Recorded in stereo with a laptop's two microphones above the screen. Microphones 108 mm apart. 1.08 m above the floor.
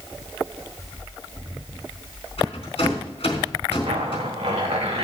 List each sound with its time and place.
2.4 s a rattle: 65° left (ahead or behind), 4 m
3.9 s a zipper: 85° right, 2.5 m